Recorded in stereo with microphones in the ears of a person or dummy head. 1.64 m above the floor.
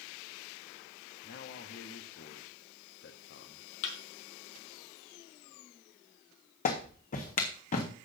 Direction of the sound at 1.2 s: 55° left (ahead or behind).